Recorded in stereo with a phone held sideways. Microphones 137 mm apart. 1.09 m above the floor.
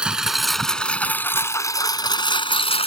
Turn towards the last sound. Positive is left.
turn(degrees=45)  # may be behind; listen again after turning